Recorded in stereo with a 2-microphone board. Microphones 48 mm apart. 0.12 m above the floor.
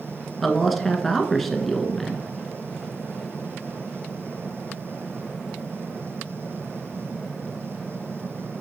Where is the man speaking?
Centre (ahead or behind), 1.2 m.